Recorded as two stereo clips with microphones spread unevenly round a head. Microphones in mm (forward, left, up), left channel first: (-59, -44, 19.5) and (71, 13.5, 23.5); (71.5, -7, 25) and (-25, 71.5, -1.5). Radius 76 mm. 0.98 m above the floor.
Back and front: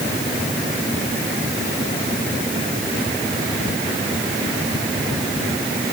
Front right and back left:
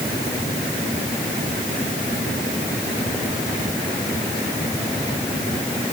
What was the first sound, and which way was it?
Only background noise.